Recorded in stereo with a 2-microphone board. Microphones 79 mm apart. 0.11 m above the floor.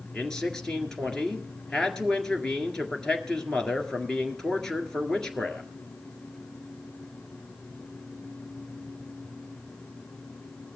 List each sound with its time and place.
0.1 s a man speaking: 10° left (ahead or behind), 1.7 m